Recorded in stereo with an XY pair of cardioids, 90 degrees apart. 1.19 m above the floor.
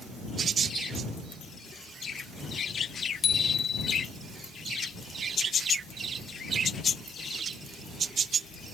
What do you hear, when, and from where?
3.2 s a bicycle bell: 55° left